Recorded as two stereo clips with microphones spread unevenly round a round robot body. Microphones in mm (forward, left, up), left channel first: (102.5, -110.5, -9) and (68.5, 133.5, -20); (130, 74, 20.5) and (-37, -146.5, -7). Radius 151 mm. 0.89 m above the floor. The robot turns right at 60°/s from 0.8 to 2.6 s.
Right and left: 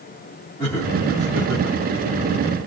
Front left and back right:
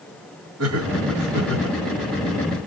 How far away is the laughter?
About 2 m.